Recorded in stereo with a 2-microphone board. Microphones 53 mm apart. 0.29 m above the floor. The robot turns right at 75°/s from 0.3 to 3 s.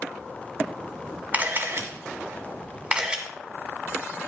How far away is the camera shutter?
About 2.5 m.